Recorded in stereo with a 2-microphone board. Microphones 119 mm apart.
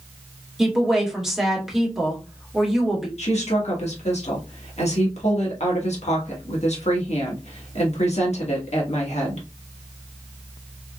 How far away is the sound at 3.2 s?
About 1.4 m.